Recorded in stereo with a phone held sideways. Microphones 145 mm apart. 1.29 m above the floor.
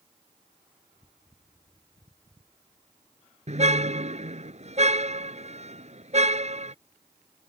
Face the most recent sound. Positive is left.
turn(degrees=-50)  # may be behind; listen again after turning